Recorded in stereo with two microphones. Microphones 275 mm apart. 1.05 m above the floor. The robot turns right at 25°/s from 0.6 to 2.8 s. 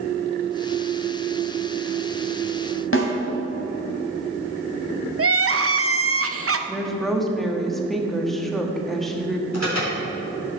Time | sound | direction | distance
2.9 | a snare drum | 50° left (ahead or behind) | 2 m
5.2 | crying | 55° right (ahead or behind) | 0.6 m
6.7 | a woman speaking | centre (ahead or behind) | 1.5 m
9.5 | an alarm | 70° right (ahead or behind) | 4.5 m